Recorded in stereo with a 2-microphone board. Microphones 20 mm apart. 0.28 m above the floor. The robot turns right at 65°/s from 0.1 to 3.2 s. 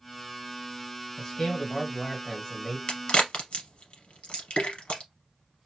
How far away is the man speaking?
About 1.5 m.